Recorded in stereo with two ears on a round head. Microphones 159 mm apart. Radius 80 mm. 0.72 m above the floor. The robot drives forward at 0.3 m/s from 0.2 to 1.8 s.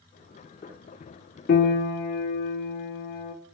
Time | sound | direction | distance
1.5 | a piano | 55° left (ahead or behind) | 0.7 m